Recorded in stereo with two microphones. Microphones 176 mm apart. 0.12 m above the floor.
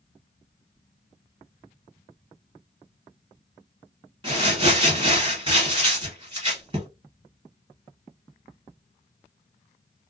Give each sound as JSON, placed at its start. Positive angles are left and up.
{"t": 4.2, "sound": "crumpling", "side_deg": -25, "distance_m": 1.7}